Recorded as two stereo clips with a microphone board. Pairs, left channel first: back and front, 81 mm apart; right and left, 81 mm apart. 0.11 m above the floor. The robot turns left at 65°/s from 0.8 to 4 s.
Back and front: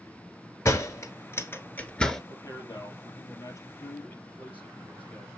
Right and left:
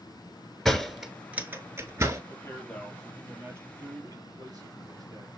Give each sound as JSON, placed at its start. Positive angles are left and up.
{"t": 0.7, "sound": "a door slam", "azimuth_deg": -170, "distance_m": 1.3}
{"t": 2.3, "sound": "a man speaking", "azimuth_deg": -130, "distance_m": 3.0}